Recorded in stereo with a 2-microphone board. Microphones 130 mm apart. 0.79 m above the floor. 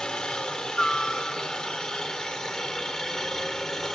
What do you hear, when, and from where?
0.0 s a helicopter: 5° left (ahead or behind)